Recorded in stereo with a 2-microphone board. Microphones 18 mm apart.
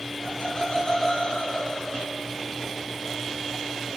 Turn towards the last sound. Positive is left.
turn(degrees=60)  # may be behind; listen again after turning